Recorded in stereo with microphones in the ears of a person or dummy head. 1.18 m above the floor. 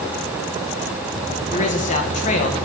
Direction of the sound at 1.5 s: 40° left (ahead or behind).